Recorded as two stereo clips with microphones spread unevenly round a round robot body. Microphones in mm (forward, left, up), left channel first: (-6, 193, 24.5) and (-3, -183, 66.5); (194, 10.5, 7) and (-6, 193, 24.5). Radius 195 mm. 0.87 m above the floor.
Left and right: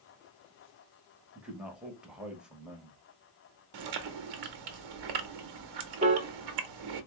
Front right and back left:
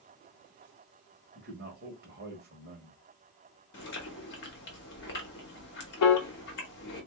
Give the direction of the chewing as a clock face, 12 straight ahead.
3 o'clock.